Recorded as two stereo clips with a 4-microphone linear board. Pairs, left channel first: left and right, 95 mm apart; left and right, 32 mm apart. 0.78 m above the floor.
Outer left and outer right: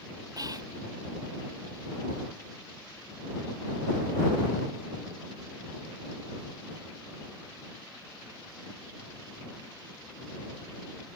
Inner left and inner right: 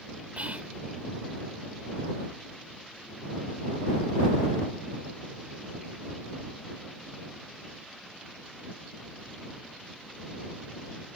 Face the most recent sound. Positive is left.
turn(degrees=-50)  # may be behind; listen again after turning